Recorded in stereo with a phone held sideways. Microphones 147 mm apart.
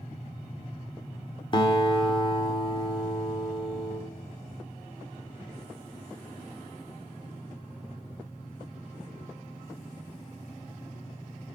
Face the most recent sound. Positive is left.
turn(degrees=35)  # may be behind; listen again after turning